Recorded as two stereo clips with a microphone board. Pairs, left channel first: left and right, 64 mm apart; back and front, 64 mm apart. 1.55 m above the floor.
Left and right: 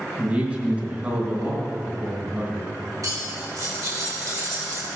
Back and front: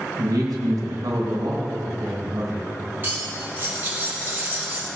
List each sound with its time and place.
0.2 s a man speaking: 20° right, 2 m
3.0 s cutlery clinking: 60° right, 2.5 m